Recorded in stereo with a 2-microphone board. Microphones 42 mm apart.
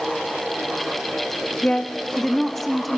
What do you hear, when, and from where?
1.6 s a woman speaking: 25° left (ahead or behind), 1.0 m; by 3.0 s 5° right (ahead or behind), 1.4 m